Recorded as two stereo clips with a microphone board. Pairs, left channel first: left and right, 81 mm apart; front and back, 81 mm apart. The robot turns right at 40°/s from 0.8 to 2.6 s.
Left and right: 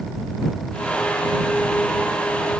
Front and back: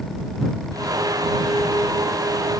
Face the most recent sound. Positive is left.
No sound to turn to.